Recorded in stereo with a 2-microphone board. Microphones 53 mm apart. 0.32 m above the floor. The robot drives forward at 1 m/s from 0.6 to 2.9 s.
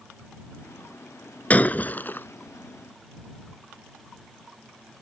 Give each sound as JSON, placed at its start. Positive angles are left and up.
{"t": 1.5, "sound": "breaking glass", "side_deg": 30}